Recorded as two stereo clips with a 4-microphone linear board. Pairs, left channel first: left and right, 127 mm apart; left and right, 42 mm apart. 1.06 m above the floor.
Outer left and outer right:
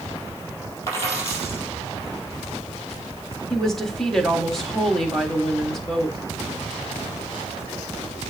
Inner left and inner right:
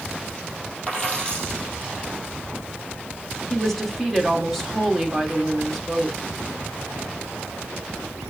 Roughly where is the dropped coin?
Left.